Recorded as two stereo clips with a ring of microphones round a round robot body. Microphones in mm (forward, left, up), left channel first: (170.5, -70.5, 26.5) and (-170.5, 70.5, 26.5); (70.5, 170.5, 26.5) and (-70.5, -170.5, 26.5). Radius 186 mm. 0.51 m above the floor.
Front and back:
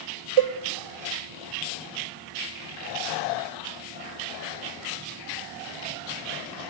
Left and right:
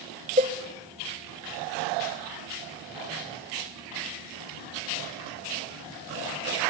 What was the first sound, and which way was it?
A cowbell, 175° left.